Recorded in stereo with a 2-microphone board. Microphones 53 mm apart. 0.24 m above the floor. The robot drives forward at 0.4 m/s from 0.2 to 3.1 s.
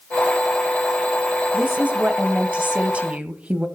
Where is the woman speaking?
20° right (ahead or behind), 1.1 m.